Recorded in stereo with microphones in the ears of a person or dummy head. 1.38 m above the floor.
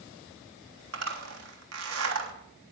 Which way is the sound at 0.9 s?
80° right.